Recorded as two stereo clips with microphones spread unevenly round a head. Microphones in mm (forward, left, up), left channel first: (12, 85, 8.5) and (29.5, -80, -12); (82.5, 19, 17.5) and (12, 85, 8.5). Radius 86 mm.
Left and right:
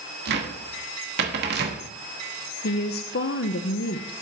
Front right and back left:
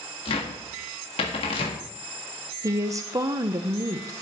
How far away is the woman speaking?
About 0.7 m.